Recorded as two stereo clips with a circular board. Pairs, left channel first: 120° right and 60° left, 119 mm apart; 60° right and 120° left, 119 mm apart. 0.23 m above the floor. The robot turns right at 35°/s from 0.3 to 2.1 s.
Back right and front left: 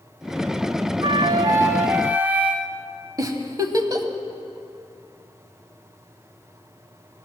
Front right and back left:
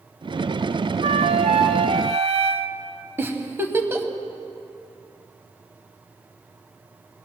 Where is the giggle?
70° left, 0.7 m.